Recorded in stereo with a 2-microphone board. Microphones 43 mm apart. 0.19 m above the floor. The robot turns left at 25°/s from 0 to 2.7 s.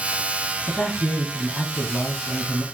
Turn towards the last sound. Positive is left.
turn(degrees=65)